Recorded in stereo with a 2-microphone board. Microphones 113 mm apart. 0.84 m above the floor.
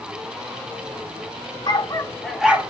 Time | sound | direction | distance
1.7 | a dog barking | 40° left (ahead or behind) | 0.9 m